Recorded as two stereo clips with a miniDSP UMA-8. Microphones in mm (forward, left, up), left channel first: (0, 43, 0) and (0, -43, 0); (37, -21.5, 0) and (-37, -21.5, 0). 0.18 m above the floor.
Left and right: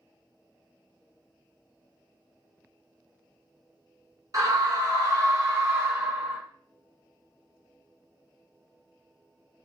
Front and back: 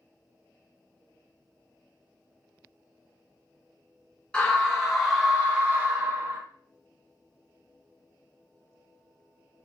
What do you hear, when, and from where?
4.3 s a scream: 75° right, 1.6 m; by 6.4 s 150° right, 1.5 m